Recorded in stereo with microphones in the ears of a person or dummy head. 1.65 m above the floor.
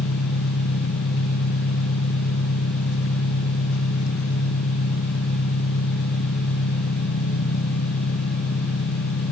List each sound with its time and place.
0.0 s an engine running: 65° left (ahead or behind), 1.5 m